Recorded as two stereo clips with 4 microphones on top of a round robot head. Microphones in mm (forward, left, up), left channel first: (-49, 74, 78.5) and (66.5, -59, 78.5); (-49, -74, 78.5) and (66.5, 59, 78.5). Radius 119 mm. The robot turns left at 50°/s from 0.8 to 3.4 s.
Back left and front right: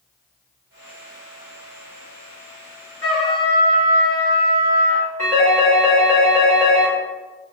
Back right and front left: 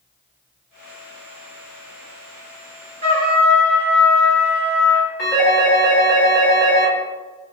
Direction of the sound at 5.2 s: 155° right.